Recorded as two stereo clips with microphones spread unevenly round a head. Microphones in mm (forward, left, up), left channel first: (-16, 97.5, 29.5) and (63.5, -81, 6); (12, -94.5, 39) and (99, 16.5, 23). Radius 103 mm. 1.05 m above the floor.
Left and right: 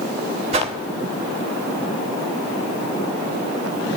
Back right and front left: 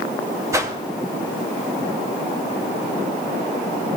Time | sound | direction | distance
0.5 | a whoosh | 15° right | 2 m